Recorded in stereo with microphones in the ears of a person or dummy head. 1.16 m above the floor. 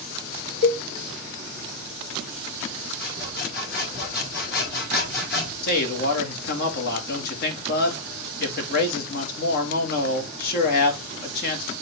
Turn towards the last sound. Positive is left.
turn(degrees=55)  # may be behind; listen again after turning